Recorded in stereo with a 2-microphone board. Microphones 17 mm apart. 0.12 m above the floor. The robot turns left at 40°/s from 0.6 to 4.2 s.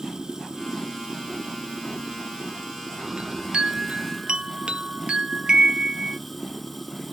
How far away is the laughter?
No laughter in this recording.